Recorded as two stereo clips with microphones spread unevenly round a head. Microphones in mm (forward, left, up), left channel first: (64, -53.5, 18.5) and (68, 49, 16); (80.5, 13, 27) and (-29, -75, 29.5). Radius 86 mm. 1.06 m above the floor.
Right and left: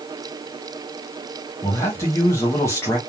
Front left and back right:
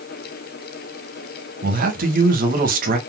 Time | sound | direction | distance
1.6 | a man speaking | 165° right | 1.3 m